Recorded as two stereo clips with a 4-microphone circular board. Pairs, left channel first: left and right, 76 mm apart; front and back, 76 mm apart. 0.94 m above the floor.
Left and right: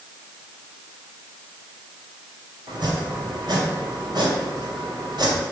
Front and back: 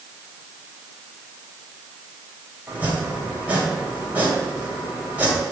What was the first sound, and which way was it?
Chopping, 110° right.